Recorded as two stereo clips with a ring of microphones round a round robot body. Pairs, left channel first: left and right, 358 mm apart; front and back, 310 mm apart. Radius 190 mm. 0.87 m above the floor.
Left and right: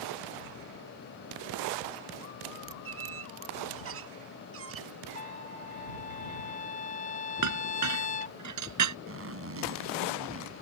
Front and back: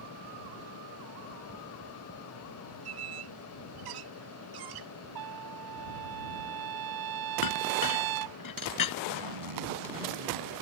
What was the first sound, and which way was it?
A squeak, 145° right.